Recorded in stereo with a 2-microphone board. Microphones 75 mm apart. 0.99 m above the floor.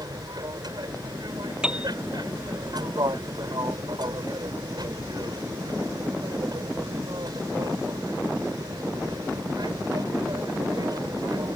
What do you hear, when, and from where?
0.0 s an aircraft: 60° right (ahead or behind)
1.6 s a piano: 10° right (ahead or behind)